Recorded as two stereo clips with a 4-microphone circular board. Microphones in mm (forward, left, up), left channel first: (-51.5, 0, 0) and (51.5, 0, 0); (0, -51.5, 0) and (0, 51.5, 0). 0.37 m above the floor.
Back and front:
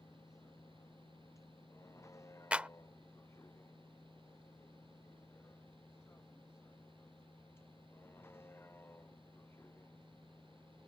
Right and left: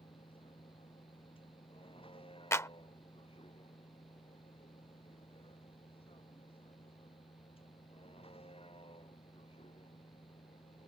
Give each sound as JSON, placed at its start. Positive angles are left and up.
{"t": 0.0, "sound": "a vehicle", "azimuth_deg": -120}
{"t": 2.5, "sound": "a clap", "azimuth_deg": -65}